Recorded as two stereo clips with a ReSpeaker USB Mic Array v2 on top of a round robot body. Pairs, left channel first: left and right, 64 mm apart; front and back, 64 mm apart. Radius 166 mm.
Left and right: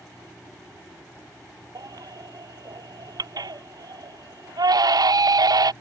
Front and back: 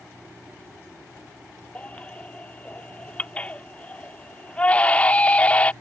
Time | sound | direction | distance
1.8 | a baby crying | 70° right | ?